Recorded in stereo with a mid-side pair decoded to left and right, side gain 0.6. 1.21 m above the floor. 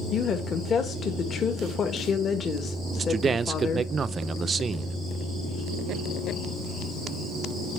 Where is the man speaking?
30° right, 0.5 m.